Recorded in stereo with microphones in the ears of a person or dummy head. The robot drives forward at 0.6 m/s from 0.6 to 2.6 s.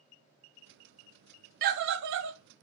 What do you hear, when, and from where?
1.6 s a scream: 55° right (ahead or behind), 0.9 m; by 2.4 s 65° right (ahead or behind), 0.8 m